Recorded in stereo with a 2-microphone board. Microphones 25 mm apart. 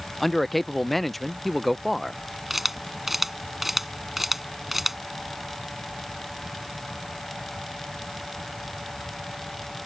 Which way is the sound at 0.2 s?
5° left (ahead or behind).